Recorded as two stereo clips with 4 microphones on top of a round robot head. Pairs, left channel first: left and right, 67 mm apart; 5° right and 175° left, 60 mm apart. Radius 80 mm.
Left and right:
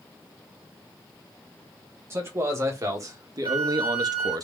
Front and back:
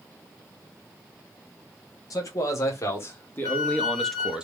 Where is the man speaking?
35° right, 1.3 m; by 4.4 s 110° right, 0.6 m.